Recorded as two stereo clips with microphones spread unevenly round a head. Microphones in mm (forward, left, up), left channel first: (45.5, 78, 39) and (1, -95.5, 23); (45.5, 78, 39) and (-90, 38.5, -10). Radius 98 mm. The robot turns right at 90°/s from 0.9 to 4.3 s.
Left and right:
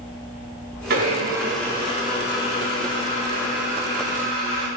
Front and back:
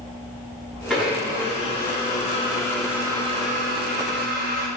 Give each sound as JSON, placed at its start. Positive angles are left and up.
{"t": 0.9, "sound": "a blender", "azimuth_deg": -70, "distance_m": 4.5}